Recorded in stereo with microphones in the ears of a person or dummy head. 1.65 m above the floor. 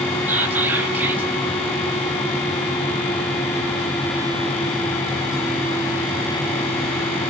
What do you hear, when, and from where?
0.3 s whispering: 10° right (ahead or behind), 1.0 m